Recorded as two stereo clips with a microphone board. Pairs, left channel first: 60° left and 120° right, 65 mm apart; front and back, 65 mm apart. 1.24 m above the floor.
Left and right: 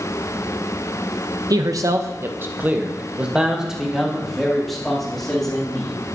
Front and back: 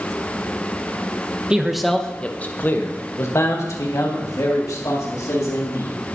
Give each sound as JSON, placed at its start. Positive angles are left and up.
{"t": 1.5, "sound": "a man speaking", "azimuth_deg": -100, "distance_m": 0.8}